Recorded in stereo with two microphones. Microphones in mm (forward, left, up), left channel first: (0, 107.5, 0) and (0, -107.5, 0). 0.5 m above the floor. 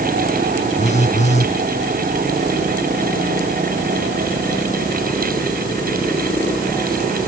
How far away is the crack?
I don't hear a crack.